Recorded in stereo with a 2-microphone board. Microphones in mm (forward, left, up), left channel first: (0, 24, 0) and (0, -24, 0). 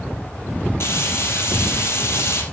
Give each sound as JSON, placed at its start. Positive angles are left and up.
{"t": 0.8, "sound": "frying", "side_deg": 55, "distance_m": 2.5}